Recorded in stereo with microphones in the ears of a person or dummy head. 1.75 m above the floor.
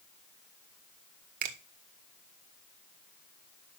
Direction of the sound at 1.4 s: 55° right (ahead or behind).